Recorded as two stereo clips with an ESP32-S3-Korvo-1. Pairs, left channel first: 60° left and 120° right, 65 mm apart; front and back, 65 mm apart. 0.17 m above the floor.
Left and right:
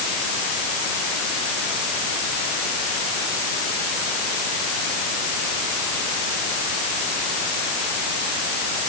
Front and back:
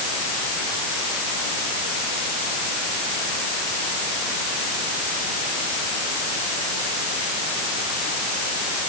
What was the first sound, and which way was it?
Only background noise.